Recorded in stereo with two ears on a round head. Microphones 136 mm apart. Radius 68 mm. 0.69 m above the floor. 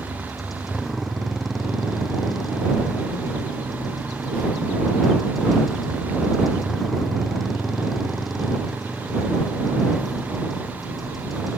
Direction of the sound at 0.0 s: Centre (ahead or behind).